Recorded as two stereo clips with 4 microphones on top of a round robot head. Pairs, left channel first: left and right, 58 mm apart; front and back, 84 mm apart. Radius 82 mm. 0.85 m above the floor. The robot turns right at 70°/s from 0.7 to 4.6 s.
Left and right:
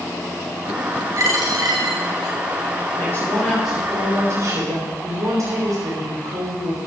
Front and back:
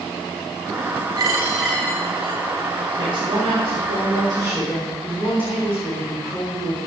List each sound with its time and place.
1.2 s a dropped coin: 130° right, 2 m; by 2.3 s 45° right, 2 m
3.0 s a woman speaking: 135° left, 4 m; by 6.8 s 110° right, 4 m